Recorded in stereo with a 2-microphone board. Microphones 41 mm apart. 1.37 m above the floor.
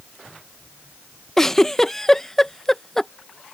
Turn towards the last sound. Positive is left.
turn(degrees=10)  # may be behind; listen again after turning